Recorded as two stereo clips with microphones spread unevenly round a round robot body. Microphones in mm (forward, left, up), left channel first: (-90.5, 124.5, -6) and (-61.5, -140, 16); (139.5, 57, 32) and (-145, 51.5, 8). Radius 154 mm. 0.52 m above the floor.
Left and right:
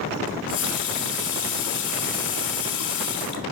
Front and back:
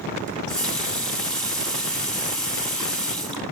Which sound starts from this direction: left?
A running tap, at 0.3 s.